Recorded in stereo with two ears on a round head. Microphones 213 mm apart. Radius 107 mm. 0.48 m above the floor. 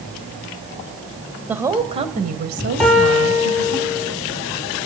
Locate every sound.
1.5 s a woman speaking: 5° right (ahead or behind), 2.5 m; by 3.8 s 70° right (ahead or behind), 3.5 m
2.8 s a piano: centre (ahead or behind), 6.5 m